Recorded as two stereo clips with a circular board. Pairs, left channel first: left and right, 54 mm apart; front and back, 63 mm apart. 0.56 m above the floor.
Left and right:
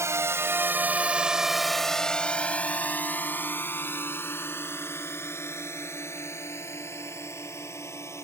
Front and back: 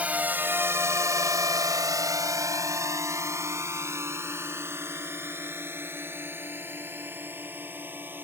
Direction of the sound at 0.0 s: 115° right.